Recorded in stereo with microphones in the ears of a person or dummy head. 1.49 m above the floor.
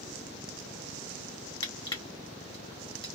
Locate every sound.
1.6 s crushing: 25° left (ahead or behind), 1.0 m